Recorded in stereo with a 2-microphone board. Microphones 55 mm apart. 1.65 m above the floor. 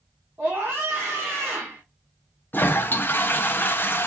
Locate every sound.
0.4 s a scream: 45° right (ahead or behind), 1.6 m
2.5 s a toilet flushing: 35° left (ahead or behind), 0.7 m